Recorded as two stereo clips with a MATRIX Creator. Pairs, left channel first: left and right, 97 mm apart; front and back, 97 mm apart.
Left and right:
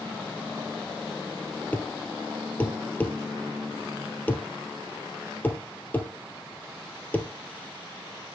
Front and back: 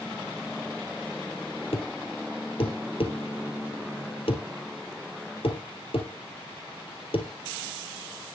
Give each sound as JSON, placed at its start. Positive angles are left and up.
{"t": 1.7, "sound": "a thud", "azimuth_deg": 20, "distance_m": 1.7}